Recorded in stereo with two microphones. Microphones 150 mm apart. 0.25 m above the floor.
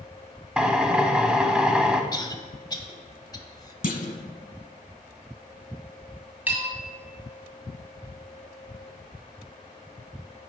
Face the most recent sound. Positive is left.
turn(degrees=-10)  # may be behind; listen again after turning